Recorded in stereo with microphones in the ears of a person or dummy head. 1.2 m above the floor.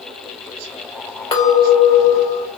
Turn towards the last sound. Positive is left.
turn(degrees=30)  # may be behind; listen again after turning